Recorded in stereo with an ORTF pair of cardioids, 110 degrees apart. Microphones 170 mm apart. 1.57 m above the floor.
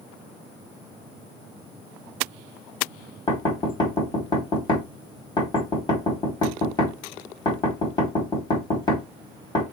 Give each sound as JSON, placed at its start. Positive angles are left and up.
{"t": 3.3, "sound": "knocking", "azimuth_deg": 25, "distance_m": 1.4}